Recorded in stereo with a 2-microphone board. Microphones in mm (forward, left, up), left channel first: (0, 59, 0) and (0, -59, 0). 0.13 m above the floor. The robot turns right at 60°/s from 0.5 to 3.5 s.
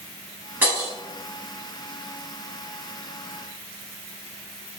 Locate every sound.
0.6 s breaking glass: 15° right (ahead or behind), 0.9 m; by 0.9 s 25° right (ahead or behind), 0.9 m